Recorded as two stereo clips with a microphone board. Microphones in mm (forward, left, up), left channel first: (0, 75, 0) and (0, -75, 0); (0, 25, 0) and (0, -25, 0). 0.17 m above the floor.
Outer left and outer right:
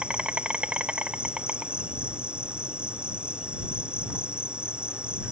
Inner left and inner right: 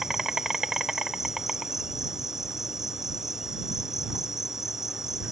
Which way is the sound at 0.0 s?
5° right (ahead or behind).